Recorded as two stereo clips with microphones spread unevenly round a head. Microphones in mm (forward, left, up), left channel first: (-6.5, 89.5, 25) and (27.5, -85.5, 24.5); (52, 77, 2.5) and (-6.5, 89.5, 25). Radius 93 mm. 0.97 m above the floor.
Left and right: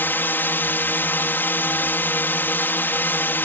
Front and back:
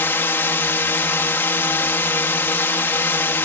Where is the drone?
25° left.